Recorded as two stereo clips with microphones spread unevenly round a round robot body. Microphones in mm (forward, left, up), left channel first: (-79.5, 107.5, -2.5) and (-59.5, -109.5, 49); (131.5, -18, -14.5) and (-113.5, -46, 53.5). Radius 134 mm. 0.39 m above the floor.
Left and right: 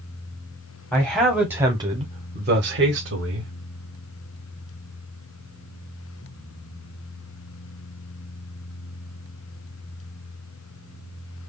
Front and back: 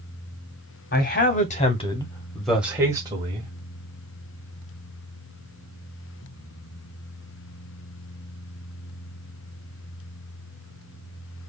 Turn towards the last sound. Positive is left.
turn(degrees=-100)